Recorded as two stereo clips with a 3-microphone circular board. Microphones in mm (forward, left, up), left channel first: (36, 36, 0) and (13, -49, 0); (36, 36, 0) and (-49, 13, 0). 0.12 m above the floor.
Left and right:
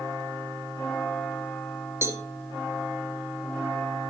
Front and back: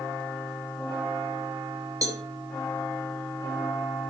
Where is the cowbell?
150° right, 2 m.